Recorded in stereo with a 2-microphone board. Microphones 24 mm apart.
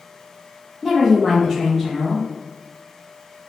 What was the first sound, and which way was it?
A woman speaking, 10° left (ahead or behind).